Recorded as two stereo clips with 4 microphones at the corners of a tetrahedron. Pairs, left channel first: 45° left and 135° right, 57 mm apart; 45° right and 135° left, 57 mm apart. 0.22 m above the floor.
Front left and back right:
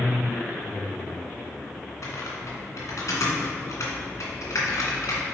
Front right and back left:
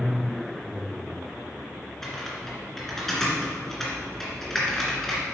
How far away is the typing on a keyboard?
About 2 m.